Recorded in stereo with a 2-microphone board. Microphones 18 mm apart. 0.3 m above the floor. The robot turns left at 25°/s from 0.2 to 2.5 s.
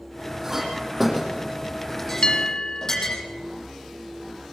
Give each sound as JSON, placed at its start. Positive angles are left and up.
{"t": 0.4, "sound": "a clink", "side_deg": -20, "distance_m": 8.5}
{"t": 2.2, "sound": "a bell", "side_deg": 55, "distance_m": 1.6}